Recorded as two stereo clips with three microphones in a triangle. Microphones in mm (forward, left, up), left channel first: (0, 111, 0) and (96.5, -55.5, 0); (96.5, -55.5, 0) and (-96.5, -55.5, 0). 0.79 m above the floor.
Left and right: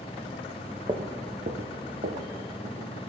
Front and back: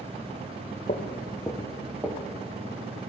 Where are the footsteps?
5° right, 1.1 m; by 2.9 s 115° right, 2.5 m.